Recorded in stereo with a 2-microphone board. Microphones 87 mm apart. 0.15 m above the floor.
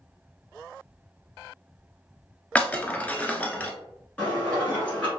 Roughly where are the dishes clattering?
Centre.